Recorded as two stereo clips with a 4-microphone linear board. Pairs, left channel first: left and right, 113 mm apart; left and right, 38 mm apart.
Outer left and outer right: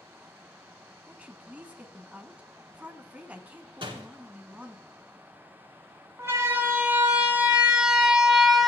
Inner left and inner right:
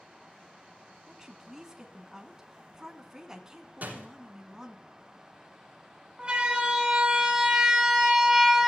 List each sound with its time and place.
1.1 s a woman speaking: 15° right (ahead or behind), 1.9 m
3.8 s a door slam: 50° right (ahead or behind), 5 m
6.2 s a siren: 25° right (ahead or behind), 3 m; by 8.7 s centre (ahead or behind), 2.5 m